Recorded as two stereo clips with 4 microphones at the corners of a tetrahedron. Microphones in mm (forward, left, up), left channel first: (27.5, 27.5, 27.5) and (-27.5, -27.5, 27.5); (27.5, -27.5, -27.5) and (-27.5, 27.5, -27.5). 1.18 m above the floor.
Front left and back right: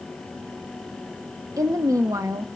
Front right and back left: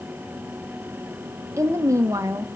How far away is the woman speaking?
About 1.0 m.